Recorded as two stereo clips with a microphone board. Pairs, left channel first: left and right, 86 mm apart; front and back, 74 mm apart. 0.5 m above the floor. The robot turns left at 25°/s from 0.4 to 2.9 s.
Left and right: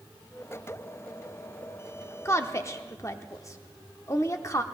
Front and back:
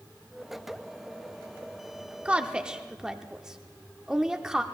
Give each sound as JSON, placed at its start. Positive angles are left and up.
{"t": 2.2, "sound": "a woman speaking", "azimuth_deg": 120, "distance_m": 0.8}